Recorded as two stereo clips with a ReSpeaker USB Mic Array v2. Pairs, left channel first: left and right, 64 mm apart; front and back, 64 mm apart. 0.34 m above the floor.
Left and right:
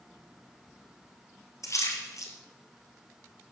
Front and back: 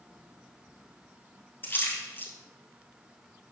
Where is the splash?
55° left, 2 m.